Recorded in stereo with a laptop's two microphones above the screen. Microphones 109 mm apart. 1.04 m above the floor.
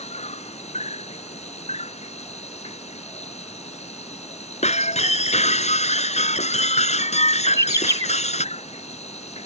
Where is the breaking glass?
85° left.